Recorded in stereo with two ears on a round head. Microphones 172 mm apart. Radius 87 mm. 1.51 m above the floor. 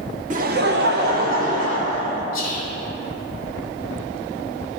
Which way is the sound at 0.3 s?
40° right (ahead or behind).